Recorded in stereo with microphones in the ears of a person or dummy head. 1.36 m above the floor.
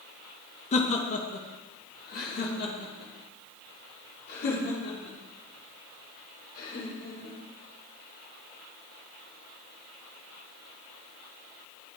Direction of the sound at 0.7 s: 40° left (ahead or behind).